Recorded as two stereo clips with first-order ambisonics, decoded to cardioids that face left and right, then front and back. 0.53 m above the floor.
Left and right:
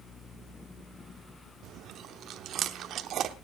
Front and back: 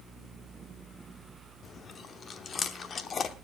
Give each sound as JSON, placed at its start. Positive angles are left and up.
{"t": 1.6, "sound": "chewing", "azimuth_deg": -55, "distance_m": 0.8}